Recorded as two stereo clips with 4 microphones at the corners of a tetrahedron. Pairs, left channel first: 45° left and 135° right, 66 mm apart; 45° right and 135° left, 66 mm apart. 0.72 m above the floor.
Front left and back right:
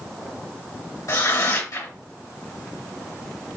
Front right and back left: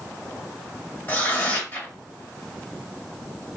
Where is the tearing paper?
15° left, 2 m.